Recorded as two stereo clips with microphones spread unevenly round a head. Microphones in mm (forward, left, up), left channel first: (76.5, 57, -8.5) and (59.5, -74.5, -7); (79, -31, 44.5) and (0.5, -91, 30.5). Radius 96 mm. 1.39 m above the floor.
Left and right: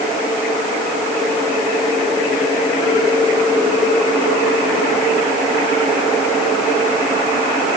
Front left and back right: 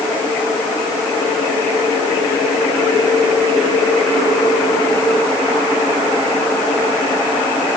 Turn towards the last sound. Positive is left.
No sound to turn to.